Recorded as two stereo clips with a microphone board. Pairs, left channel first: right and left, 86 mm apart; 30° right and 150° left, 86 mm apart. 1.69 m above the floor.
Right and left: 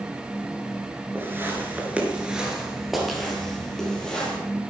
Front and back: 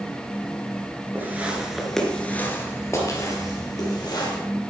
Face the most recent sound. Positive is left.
turn(degrees=-10)